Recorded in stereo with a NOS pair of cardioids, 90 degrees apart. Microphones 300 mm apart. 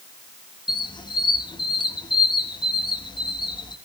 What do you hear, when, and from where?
0.7 s a squeak: 15° left, 1.2 m